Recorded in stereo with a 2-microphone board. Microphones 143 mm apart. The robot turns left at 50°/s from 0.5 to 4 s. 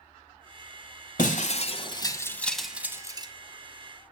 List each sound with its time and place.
1.2 s breaking glass: 70° left (ahead or behind), 1.3 m; by 3.3 s 35° right (ahead or behind), 1.3 m